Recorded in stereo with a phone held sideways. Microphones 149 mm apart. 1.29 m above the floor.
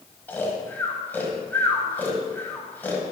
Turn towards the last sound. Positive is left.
turn(degrees=15)  # may be behind; listen again after turning